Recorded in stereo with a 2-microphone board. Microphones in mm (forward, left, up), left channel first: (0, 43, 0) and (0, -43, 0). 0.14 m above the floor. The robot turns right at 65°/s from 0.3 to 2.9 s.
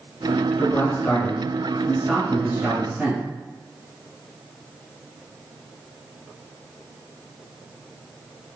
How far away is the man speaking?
About 1.5 m.